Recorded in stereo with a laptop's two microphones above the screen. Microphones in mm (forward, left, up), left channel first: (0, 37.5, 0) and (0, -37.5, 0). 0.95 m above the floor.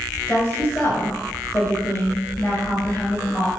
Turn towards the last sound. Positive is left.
turn(degrees=25)  # may be behind; listen again after turning